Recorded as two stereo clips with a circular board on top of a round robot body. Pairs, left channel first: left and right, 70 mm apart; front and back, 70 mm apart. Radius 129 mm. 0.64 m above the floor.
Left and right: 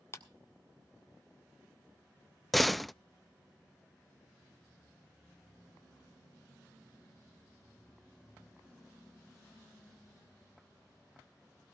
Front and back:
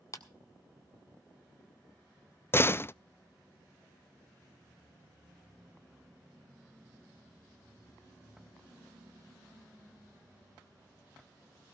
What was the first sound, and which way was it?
A clap, 40° left.